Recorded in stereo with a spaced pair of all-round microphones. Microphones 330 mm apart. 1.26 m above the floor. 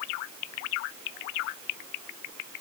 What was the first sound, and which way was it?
Only background noise.